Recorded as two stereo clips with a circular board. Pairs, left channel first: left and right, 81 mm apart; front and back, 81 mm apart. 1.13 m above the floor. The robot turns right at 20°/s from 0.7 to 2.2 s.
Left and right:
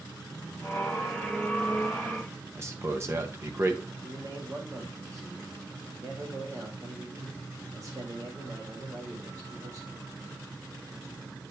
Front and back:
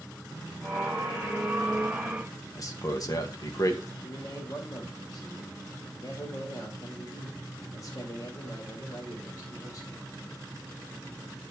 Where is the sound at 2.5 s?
35° right, 1.6 m.